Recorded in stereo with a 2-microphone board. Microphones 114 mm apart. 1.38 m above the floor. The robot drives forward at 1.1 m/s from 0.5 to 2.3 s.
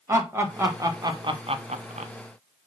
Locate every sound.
0.1 s laughter: 25° right (ahead or behind), 1.7 m; by 2.1 s 70° right (ahead or behind), 0.7 m